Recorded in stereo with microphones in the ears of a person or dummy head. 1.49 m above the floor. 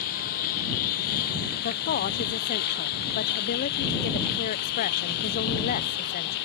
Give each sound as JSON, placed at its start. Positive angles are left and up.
{"t": 0.0, "sound": "a lawn mower", "side_deg": 50}
{"t": 1.6, "sound": "a woman speaking", "side_deg": 50}